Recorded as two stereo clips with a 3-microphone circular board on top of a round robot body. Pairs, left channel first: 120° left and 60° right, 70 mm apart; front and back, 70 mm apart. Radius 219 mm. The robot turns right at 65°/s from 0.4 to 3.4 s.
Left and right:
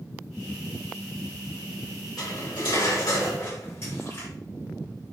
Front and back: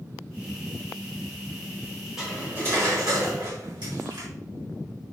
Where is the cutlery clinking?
95° left, 4.5 m; by 4.3 s 175° left, 4.5 m.